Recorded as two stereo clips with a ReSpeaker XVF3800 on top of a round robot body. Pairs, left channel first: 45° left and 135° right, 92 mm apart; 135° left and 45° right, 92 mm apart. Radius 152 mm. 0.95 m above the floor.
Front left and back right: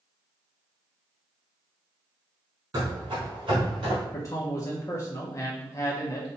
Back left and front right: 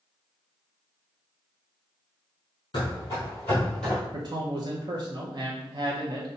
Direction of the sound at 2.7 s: Straight behind.